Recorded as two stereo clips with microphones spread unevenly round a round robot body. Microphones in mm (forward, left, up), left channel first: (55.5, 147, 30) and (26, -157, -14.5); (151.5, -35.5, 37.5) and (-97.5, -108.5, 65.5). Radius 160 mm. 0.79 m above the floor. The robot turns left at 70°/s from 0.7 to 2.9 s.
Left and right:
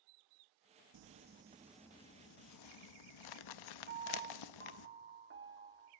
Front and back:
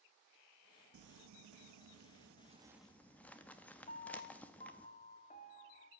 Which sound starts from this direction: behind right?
Crumpling, at 0.9 s.